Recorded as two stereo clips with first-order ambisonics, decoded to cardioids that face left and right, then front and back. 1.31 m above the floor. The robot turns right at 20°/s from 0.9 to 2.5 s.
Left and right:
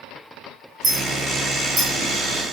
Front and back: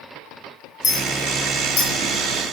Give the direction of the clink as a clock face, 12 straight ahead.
1 o'clock.